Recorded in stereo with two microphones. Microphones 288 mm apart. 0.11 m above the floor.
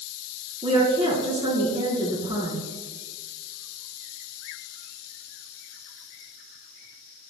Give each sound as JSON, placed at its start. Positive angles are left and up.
{"t": 0.6, "sound": "a woman speaking", "side_deg": -20, "distance_m": 1.5}